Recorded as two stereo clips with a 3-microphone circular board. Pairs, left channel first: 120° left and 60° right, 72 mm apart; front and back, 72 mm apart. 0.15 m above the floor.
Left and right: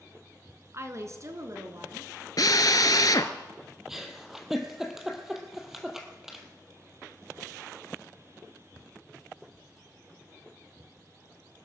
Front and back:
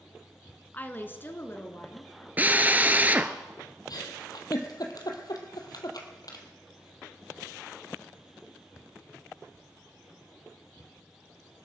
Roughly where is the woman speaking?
Ahead right.